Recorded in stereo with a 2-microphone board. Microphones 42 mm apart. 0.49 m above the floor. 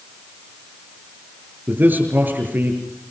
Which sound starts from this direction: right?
A man speaking, at 1.7 s.